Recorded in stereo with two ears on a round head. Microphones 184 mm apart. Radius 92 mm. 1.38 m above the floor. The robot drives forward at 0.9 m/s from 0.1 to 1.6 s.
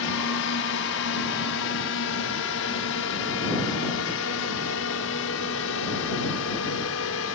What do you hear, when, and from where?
0.0 s a drone: 70° left (ahead or behind); by 7.3 s 75° left (ahead or behind)